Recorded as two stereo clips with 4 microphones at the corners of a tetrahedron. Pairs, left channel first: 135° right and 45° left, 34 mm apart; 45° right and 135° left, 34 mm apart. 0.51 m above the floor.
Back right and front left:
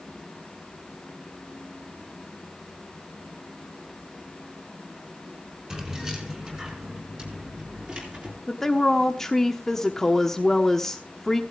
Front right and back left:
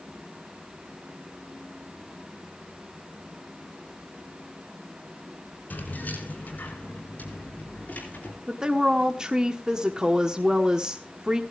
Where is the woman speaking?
160° left, 1.0 m.